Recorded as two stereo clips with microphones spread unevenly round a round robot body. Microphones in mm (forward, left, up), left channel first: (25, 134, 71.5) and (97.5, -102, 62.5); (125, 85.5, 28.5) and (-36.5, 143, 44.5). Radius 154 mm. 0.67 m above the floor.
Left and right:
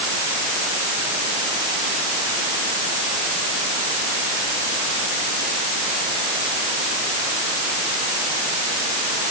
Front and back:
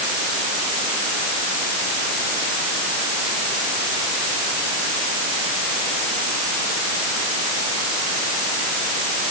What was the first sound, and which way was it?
Only background noise.